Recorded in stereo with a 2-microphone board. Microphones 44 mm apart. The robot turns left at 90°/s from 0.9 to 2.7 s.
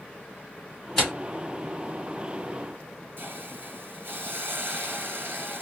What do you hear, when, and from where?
1.0 s tearing paper: 10° left (ahead or behind), 2 m; by 1.1 s centre (ahead or behind), 2 m
3.2 s a hiss: 55° right (ahead or behind), 1.7 m